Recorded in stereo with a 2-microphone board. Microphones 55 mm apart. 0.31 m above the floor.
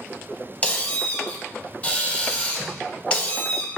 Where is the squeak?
25° left (ahead or behind), 0.6 m.